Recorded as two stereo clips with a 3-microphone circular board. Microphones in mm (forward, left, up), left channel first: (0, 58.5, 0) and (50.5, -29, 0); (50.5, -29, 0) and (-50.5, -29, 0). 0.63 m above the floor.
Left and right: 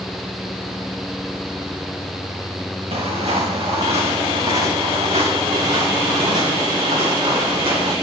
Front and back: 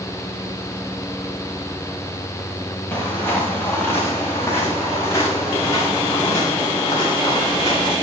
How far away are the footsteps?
About 5 m.